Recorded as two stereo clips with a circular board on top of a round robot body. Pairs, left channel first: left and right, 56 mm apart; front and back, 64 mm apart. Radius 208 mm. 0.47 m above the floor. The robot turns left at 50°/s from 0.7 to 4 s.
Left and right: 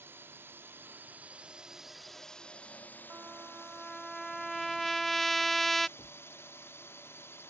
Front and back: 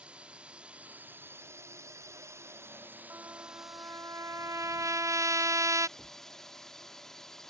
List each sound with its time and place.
0.0 s a drone: 115° right; by 7.5 s 80° left
3.1 s a trumpet: 140° right; by 5.9 s 175° left
6.0 s a thud: 105° left